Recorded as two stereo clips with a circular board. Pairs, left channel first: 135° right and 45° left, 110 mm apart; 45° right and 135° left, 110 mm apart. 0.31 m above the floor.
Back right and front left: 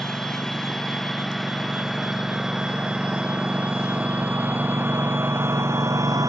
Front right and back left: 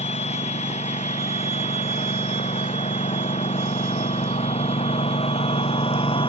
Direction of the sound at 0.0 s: 50° right.